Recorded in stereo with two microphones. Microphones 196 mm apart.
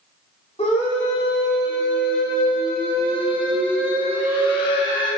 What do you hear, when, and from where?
0.6 s a scream: 30° left (ahead or behind), 4 m; by 5.1 s 25° left (ahead or behind), 6 m